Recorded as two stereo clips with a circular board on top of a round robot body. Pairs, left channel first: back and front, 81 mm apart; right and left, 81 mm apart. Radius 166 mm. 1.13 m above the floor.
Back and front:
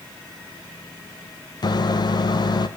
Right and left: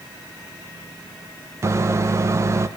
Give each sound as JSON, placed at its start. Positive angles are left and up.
{"t": 1.6, "sound": "a microwave", "azimuth_deg": 145, "distance_m": 0.8}